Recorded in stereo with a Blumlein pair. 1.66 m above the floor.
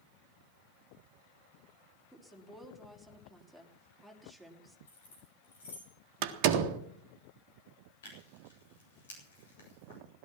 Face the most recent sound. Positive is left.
turn(degrees=60)